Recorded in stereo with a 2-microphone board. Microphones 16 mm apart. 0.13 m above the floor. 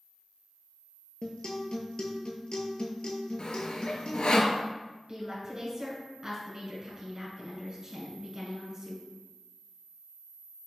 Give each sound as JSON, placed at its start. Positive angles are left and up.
{"t": 1.2, "sound": "a guitar", "side_deg": 70, "distance_m": 0.7}
{"t": 3.4, "sound": "sawing", "side_deg": 65, "distance_m": 0.6}
{"t": 5.1, "sound": "a woman speaking", "side_deg": -35, "distance_m": 1.7}